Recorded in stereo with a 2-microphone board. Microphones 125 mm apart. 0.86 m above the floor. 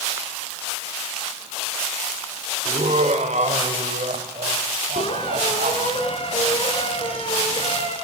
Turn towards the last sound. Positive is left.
turn(degrees=50)  # may be behind; listen again after turning